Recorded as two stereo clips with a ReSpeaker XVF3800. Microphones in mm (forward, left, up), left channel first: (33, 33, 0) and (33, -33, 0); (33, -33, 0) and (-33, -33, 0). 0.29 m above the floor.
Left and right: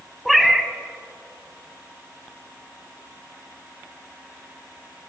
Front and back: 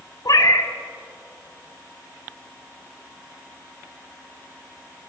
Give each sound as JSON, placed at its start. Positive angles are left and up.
{"t": 0.2, "sound": "a cat meowing", "azimuth_deg": 0, "distance_m": 0.6}